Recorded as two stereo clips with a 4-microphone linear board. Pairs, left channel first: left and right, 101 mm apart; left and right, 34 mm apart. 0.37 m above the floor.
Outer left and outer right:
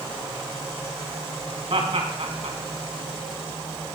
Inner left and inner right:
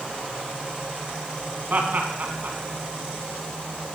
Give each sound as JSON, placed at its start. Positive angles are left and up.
{"t": 1.7, "sound": "laughter", "side_deg": -65, "distance_m": 3.5}